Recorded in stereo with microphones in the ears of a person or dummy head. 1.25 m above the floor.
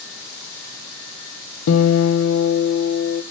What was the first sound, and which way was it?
A guitar, 85° left.